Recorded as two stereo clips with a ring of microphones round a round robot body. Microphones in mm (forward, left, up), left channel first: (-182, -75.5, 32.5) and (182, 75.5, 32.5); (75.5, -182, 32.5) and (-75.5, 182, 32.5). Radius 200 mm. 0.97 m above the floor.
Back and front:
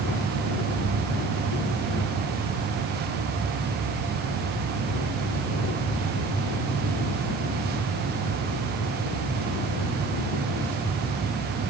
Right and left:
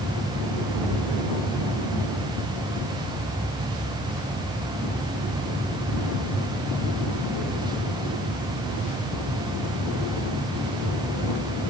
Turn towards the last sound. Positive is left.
No sound to turn to.